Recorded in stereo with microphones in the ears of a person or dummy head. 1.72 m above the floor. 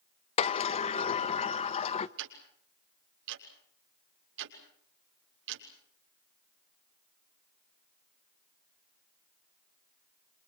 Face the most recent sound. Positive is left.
turn(degrees=-70)  # may be behind; listen again after turning